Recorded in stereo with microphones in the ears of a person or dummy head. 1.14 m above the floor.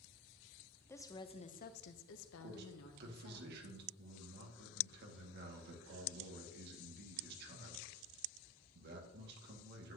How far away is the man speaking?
About 1.8 m.